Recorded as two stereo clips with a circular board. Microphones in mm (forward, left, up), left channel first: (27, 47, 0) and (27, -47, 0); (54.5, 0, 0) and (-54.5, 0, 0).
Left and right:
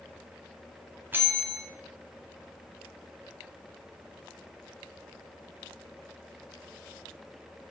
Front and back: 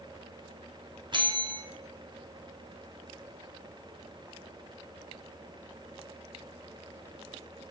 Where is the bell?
155° right, 2 m.